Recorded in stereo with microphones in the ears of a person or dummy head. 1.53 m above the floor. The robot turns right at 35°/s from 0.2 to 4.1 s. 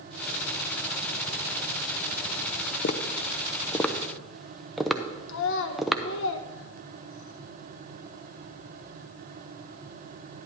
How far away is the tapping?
About 0.6 m.